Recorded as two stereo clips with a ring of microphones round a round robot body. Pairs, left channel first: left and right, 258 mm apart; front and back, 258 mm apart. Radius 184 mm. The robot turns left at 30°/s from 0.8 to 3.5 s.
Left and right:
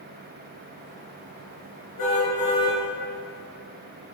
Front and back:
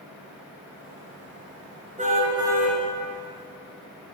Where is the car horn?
115° left, 4.5 m; by 2.8 s 90° left, 4.5 m.